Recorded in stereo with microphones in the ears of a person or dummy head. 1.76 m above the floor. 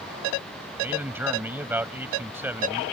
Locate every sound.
0.8 s a man speaking: 10° right (ahead or behind)